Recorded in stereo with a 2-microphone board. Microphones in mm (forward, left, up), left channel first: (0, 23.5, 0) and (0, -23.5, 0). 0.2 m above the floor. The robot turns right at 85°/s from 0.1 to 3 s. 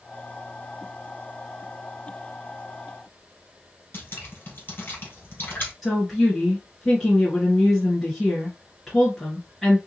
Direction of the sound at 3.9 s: 45° left (ahead or behind).